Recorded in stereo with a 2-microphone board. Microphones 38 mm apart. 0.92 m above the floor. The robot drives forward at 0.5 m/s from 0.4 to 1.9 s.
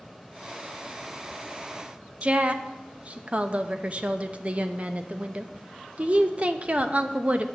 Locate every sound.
2.2 s a woman speaking: 30° right (ahead or behind), 0.6 m